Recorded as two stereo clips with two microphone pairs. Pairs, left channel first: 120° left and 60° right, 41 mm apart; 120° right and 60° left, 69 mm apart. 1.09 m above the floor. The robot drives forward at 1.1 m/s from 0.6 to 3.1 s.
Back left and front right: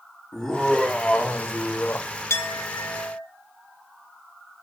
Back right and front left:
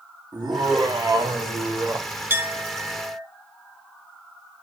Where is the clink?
125° left, 1.3 m; by 3.2 s 145° left, 1.9 m.